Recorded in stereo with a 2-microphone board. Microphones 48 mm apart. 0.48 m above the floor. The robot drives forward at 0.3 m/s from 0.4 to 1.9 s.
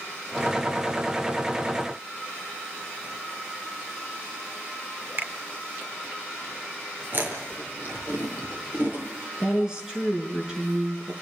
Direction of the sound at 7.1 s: 45° right (ahead or behind).